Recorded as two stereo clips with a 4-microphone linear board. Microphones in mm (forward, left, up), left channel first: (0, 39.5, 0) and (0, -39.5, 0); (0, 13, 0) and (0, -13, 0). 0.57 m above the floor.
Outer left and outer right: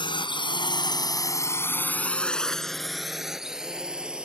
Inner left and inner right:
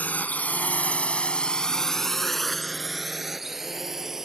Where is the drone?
80° left; by 4.3 s 10° right (ahead or behind).